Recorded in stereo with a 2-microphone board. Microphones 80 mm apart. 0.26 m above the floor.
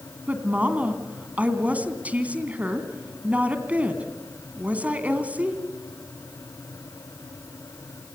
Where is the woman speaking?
20° right (ahead or behind), 2.5 m.